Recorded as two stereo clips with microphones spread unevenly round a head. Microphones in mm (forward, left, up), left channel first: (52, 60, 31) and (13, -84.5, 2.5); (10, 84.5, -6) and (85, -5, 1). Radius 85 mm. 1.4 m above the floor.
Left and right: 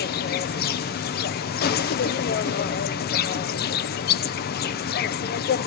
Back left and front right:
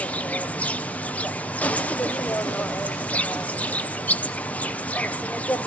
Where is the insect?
50° left, 0.9 m.